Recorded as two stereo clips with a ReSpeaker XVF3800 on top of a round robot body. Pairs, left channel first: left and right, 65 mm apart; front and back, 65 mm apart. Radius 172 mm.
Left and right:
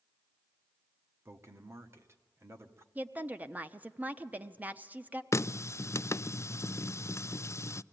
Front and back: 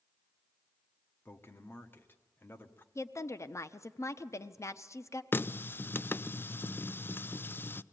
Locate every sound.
1.2 s a man speaking: 50° right, 1.7 m
3.0 s a woman speaking: 30° right, 1.1 m
5.3 s a running tap: 50° left, 0.5 m